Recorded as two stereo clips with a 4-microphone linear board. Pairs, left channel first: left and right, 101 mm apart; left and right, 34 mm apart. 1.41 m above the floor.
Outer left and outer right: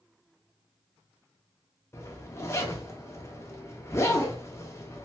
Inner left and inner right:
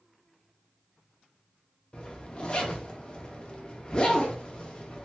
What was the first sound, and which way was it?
A zipper, 25° left (ahead or behind).